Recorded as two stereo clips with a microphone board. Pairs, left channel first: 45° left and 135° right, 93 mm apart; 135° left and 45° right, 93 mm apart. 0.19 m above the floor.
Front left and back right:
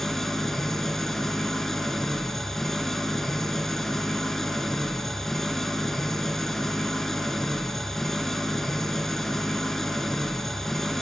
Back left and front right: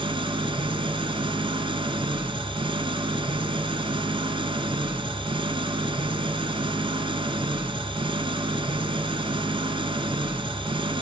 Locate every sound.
0.0 s an engine running: 40° right, 0.7 m